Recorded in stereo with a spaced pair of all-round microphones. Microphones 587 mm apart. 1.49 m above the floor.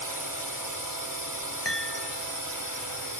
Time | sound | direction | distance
0.0 | a drone | 35° right (ahead or behind) | ?
1.6 | a chime | 45° left (ahead or behind) | ?